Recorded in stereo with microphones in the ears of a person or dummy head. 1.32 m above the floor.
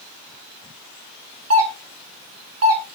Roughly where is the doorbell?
Right.